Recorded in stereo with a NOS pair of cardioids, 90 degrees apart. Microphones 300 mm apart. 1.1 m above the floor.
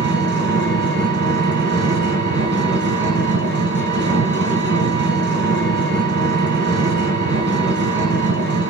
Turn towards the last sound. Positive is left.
turn(degrees=-35)